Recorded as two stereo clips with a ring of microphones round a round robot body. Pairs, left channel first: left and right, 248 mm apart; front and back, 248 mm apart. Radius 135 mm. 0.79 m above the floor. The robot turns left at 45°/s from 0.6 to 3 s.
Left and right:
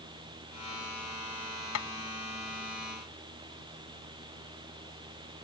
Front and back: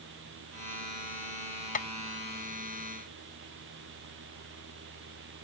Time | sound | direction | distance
1.8 | tapping | 55° left | ?